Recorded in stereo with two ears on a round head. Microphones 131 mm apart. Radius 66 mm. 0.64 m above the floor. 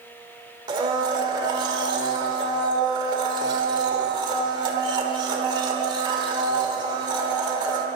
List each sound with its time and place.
0.7 s a blender: 30° right (ahead or behind), 1.6 m